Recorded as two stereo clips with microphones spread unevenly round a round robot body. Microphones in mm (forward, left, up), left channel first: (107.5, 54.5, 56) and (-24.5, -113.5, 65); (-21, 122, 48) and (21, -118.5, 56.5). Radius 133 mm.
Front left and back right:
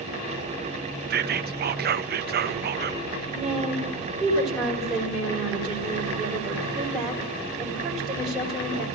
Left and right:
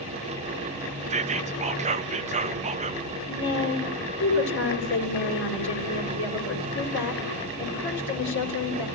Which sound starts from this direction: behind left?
A woman speaking, at 3.3 s.